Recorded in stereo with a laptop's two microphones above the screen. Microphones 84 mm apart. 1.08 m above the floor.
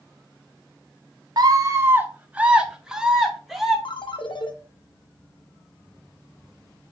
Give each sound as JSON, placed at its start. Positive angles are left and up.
{"t": 1.4, "sound": "a scream", "side_deg": -50, "distance_m": 0.8}
{"t": 3.9, "sound": "a ringtone", "side_deg": 70, "distance_m": 0.8}